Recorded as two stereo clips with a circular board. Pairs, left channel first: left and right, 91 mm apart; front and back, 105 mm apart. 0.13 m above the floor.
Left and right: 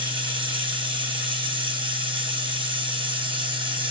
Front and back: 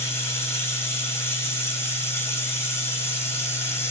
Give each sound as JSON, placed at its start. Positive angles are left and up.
{"t": 0.0, "sound": "running water", "azimuth_deg": -65, "distance_m": 0.9}